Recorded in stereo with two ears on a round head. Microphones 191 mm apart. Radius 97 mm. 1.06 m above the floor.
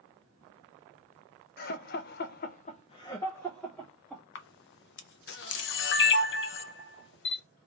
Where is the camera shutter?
60° left (ahead or behind), 0.6 m.